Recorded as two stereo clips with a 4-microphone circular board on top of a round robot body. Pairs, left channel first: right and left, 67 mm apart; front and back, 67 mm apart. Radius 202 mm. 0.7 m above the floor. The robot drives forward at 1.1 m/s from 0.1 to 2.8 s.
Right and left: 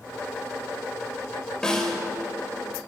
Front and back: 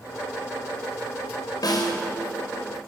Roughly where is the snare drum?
Ahead.